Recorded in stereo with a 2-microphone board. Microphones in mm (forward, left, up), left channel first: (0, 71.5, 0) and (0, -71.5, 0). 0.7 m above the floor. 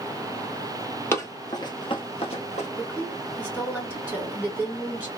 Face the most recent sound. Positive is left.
turn(degrees=5)  # may be behind; listen again after turning